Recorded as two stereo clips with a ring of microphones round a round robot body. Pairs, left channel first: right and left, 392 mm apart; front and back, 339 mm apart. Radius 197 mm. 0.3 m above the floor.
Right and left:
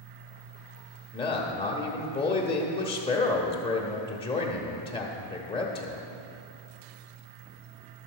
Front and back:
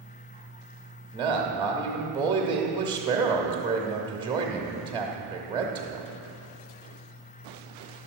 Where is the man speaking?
135° right, 0.9 m.